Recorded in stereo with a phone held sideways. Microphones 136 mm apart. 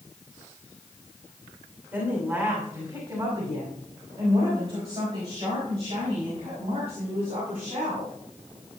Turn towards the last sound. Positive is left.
turn(degrees=-60)  # may be behind; listen again after turning